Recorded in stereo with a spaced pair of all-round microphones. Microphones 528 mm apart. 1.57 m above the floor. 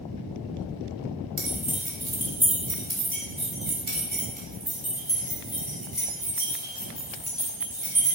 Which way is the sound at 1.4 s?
75° right (ahead or behind).